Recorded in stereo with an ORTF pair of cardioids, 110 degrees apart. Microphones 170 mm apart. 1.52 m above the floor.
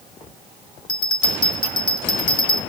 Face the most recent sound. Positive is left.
turn(degrees=30)